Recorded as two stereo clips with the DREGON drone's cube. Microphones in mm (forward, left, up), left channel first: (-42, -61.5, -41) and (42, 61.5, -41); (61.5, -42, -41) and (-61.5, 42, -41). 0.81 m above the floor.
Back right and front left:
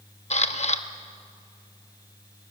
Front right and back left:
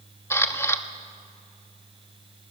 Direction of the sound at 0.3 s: 105° right.